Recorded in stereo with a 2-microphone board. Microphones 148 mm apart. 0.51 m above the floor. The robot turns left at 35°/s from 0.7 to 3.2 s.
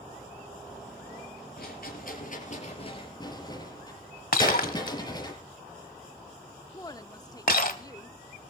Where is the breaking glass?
70° left (ahead or behind), 1.3 m.